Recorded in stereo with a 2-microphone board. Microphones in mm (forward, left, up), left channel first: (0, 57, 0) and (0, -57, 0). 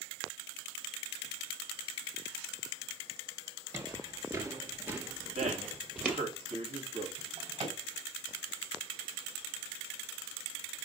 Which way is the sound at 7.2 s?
60° right (ahead or behind).